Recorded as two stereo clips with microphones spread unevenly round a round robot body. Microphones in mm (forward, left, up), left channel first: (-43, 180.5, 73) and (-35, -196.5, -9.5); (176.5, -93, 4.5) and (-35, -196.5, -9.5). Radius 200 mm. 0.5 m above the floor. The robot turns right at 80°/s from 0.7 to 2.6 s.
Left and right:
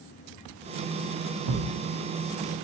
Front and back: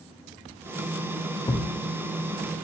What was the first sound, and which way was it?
A thud, 50° right.